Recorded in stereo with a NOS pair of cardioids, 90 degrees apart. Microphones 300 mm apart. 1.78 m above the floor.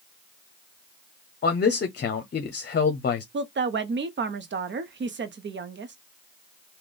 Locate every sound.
1.4 s a man speaking: 35° left, 0.8 m
3.3 s a woman speaking: 40° right, 0.9 m